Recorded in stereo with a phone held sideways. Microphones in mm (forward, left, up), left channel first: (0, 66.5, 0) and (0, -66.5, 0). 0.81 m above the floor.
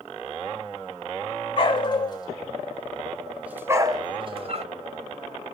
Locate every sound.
1.6 s a dog barking: 40° left (ahead or behind), 1.4 m; by 4.7 s 55° right (ahead or behind), 1.0 m